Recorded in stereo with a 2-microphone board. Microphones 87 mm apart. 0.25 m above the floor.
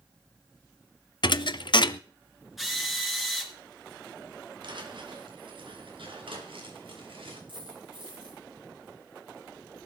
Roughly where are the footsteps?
Right.